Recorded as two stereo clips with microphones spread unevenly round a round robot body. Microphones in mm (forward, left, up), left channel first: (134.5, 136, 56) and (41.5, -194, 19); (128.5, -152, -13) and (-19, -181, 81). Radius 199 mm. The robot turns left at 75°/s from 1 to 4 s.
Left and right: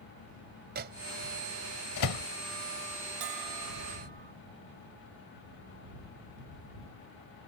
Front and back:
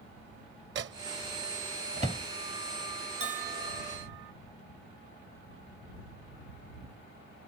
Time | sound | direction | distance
0.8 | a microwave | 170° right | ?
3.2 | a bell | 110° right | ?